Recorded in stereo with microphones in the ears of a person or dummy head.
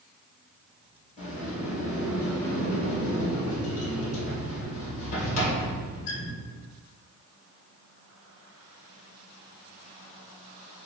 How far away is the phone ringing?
I don't hear a phone ringing.